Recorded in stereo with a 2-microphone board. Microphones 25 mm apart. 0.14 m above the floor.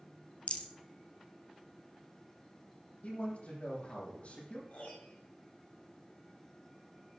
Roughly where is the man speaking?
Left.